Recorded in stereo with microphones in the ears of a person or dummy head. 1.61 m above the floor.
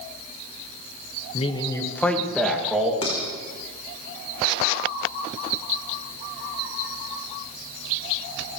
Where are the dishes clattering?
30° left (ahead or behind), 4 m.